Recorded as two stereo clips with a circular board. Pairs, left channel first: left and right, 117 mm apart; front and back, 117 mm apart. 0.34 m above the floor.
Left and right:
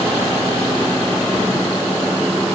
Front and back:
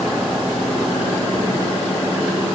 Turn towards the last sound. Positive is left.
No sound to turn to.